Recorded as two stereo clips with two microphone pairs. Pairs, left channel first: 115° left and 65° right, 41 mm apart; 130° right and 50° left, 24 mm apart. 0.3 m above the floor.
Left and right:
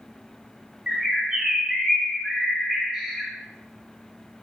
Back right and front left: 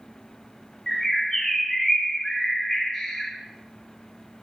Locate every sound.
0.9 s a bird: 110° right, 1.5 m